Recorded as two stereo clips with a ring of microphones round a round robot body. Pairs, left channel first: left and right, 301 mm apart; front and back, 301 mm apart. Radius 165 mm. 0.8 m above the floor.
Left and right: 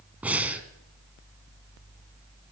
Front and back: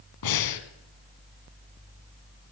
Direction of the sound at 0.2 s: 5° right.